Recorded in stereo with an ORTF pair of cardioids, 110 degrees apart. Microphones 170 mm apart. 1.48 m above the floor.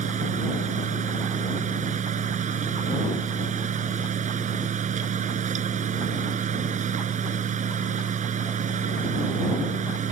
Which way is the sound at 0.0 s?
45° right.